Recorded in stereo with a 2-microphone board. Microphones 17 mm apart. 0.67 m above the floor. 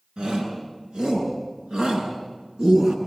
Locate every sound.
0.2 s a shout: 85° right, 9 m; by 3.0 s 80° right, 8 m